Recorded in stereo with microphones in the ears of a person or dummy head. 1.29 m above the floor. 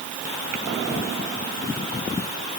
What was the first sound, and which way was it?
Only background noise.